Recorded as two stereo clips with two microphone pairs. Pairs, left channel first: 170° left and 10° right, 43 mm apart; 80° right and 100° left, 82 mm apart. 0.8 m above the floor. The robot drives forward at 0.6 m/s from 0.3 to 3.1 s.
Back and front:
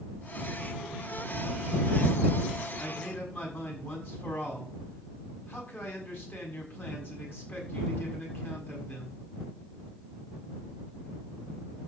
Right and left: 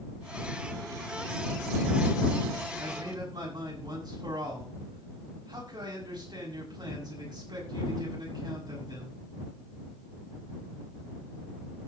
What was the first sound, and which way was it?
A man speaking, 135° left.